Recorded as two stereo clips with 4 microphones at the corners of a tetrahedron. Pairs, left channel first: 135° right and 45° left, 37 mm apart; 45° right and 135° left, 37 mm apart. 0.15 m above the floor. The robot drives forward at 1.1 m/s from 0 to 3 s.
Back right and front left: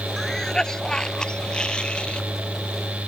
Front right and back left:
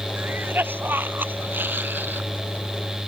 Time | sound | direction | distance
0.2 | a cough | 145° left | ?